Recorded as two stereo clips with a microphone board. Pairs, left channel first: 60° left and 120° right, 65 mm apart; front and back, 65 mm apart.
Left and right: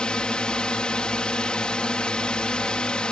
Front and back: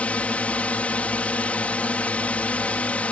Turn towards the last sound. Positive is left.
turn(degrees=10)